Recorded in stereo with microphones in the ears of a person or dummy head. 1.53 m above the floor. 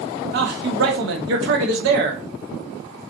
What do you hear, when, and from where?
0.3 s a man speaking: 70° right (ahead or behind), 1.0 m